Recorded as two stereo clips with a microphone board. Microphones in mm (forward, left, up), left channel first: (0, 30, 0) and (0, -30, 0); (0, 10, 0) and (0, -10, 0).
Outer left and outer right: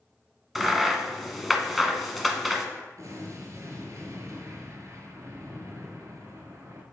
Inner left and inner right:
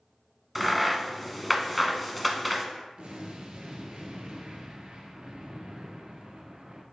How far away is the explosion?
About 1.4 m.